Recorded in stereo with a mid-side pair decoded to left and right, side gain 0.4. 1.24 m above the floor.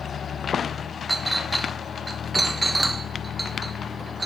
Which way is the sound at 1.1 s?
15° right.